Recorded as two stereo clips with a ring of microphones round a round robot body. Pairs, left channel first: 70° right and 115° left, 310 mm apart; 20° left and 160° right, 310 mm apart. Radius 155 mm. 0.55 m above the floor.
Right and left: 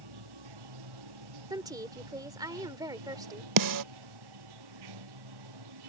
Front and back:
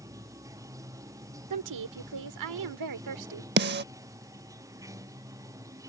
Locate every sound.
0.0 s running water: 120° left
1.5 s a woman speaking: 170° right
3.6 s a snare drum: 145° left